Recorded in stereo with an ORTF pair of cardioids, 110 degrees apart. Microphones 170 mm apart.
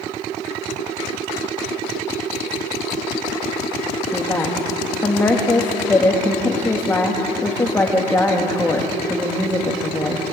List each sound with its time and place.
4.1 s a woman speaking: 10° left, 3 m